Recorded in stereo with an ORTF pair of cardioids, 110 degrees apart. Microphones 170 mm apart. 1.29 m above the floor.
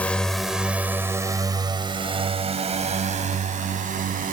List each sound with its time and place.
0.0 s a drone: 10° left; by 4.3 s 50° right